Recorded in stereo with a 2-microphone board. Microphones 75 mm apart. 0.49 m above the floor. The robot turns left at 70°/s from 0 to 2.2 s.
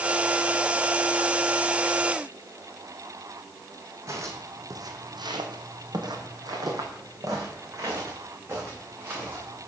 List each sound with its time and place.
4.1 s footsteps: 40° right (ahead or behind), 1.7 m; by 9.7 s 30° right (ahead or behind), 4 m